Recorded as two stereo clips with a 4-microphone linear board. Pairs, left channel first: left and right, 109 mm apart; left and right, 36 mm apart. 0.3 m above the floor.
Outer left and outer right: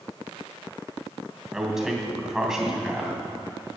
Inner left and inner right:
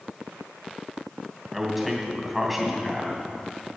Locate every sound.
1.5 s a man speaking: 5° right (ahead or behind), 2.5 m